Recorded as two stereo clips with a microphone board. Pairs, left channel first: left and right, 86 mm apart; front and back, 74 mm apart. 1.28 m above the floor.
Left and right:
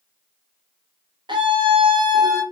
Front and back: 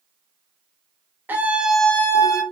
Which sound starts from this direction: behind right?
A scream, at 1.3 s.